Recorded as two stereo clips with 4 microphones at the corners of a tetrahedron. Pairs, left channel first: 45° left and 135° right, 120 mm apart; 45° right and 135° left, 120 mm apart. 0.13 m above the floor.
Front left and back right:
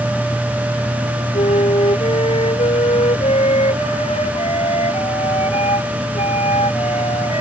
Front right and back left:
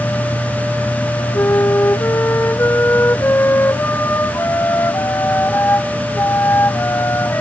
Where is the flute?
25° left.